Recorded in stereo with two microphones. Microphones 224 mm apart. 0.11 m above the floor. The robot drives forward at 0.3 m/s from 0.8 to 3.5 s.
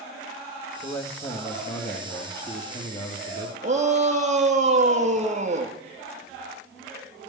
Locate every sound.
0.8 s a man speaking: 45° left (ahead or behind), 3 m; by 3.5 s 50° left (ahead or behind), 3 m
3.6 s a shout: 30° right (ahead or behind), 3 m